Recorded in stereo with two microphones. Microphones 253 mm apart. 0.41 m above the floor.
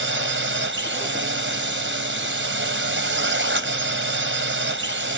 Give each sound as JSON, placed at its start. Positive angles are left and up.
{"t": 0.0, "sound": "a drone", "side_deg": -55}